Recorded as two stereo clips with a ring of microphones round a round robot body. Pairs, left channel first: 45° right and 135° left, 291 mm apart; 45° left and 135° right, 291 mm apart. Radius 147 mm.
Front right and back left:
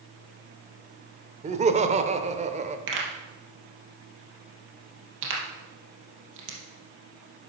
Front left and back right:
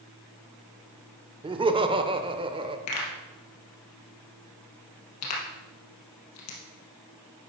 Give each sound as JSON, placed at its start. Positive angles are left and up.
{"t": 1.4, "sound": "laughter", "azimuth_deg": 175, "distance_m": 0.8}
{"t": 2.9, "sound": "a pop", "azimuth_deg": 85, "distance_m": 3.0}